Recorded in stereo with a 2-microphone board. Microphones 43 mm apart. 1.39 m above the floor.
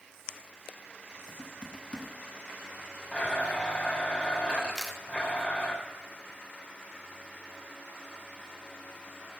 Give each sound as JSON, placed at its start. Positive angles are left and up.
{"t": 1.3, "sound": "typing on a keyboard", "side_deg": 25, "distance_m": 1.1}
{"t": 3.1, "sound": "a blender", "side_deg": 30, "distance_m": 3.5}
{"t": 4.8, "sound": "a camera shutter", "side_deg": 0, "distance_m": 0.9}